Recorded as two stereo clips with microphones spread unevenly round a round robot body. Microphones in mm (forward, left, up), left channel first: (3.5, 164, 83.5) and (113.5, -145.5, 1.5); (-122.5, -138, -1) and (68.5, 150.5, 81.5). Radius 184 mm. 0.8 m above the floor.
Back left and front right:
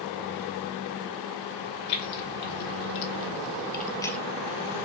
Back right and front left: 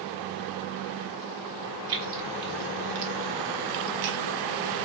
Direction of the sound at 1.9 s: 110° left.